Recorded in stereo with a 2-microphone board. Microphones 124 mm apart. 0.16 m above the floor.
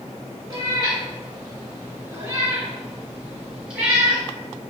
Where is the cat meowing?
35° right (ahead or behind), 1.0 m; by 4.2 s 5° right (ahead or behind), 1.9 m.